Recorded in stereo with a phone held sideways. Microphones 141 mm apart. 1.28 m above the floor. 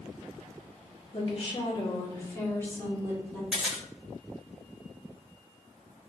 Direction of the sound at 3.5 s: 5° right (ahead or behind).